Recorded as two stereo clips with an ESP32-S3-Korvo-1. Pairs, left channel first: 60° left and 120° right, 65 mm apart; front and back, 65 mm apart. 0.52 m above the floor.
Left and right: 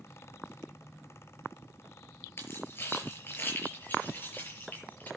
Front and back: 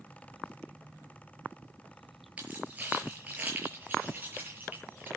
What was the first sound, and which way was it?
Keys jangling, 110° left.